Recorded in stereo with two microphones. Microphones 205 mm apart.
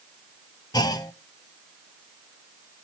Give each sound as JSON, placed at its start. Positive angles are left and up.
{"t": 0.7, "sound": "a clunk", "side_deg": 20, "distance_m": 0.6}